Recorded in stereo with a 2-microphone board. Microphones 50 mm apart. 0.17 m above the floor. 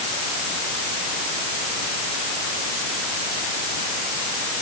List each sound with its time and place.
Only background noise.